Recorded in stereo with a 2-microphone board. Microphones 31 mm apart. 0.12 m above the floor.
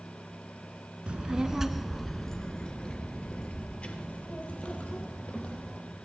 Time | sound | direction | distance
1.1 | a child speaking | 35° right (ahead or behind) | 0.7 m